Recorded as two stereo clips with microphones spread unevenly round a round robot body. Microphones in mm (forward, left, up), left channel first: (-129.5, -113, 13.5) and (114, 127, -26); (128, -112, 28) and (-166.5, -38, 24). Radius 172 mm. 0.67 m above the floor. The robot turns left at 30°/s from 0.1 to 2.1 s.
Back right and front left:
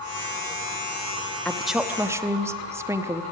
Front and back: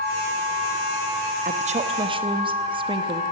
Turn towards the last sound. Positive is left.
turn(degrees=110)